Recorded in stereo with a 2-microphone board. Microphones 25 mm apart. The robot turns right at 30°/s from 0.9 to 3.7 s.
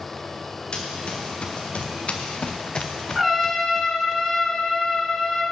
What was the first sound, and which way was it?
Running footsteps, 40° left (ahead or behind).